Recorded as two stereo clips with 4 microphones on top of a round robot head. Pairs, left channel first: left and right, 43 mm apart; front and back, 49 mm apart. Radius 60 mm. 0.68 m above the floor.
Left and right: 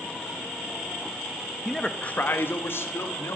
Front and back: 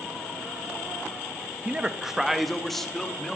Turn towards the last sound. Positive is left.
turn(degrees=80)